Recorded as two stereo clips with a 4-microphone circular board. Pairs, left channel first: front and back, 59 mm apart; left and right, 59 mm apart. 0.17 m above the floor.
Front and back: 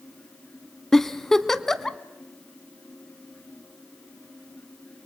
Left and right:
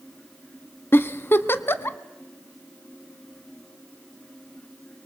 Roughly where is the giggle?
Left.